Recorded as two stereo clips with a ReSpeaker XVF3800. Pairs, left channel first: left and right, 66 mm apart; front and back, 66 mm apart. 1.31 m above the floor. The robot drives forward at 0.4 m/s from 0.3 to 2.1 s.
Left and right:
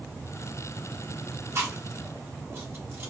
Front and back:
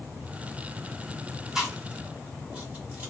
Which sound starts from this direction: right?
Chewing, at 1.6 s.